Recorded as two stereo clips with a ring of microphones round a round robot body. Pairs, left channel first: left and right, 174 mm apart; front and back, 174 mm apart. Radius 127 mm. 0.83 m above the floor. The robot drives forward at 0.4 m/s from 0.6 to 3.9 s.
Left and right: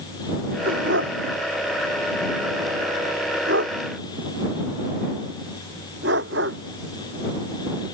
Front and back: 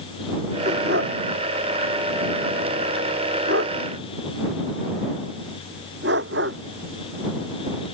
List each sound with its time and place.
0.7 s a dog barking: 130° right; by 6.6 s 135° right